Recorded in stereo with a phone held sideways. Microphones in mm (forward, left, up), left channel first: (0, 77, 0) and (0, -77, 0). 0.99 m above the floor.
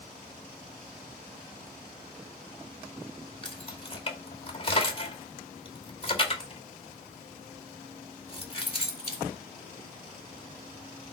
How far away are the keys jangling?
About 2 m.